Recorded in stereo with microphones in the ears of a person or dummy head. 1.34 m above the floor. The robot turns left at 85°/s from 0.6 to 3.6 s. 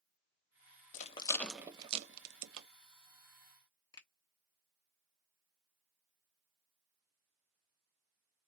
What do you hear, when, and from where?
0.9 s a rattle: 45° left (ahead or behind), 0.6 m; by 2.7 s 70° right (ahead or behind), 0.6 m
3.9 s a finger snap: 25° left (ahead or behind), 0.8 m